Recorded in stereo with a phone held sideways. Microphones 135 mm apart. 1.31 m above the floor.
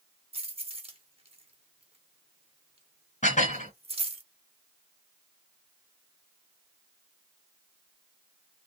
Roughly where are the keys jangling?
Right.